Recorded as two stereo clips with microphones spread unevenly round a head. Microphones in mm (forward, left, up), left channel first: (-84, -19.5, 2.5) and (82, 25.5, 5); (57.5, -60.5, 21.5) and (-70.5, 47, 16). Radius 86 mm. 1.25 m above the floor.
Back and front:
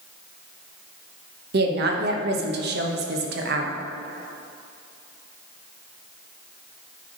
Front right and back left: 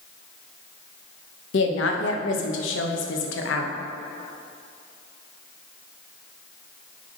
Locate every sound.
1.5 s a woman speaking: 20° right, 1.1 m